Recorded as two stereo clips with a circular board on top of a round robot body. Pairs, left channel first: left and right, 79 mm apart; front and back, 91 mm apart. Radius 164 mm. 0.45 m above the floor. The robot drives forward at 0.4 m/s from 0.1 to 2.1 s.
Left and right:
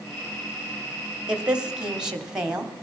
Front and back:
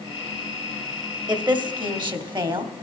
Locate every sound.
1.3 s a woman speaking: 165° right, 2.0 m; by 2.7 s 170° right, 2.5 m